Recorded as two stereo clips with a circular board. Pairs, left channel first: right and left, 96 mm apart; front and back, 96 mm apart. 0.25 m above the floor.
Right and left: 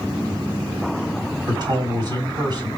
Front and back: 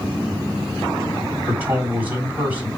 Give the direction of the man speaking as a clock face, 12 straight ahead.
8 o'clock.